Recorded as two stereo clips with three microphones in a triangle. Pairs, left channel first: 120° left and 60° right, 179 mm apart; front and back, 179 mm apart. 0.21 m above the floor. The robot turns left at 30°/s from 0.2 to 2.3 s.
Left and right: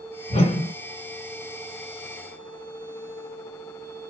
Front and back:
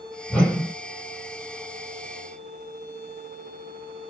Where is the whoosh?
85° left, 1.7 m; by 0.7 s 70° left, 1.7 m.